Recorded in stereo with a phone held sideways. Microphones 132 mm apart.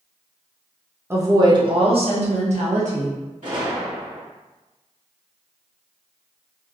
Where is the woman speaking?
20° right (ahead or behind), 0.7 m; by 3.2 s 70° right (ahead or behind), 1.3 m.